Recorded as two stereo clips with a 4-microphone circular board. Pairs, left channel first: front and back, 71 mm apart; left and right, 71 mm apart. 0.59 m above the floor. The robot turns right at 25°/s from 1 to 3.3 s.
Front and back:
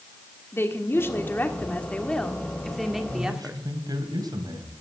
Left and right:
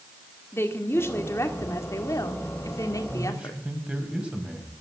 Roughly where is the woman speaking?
Ahead left.